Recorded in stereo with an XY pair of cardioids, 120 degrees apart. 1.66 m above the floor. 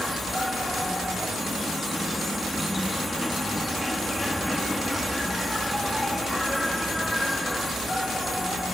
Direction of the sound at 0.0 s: 5° left.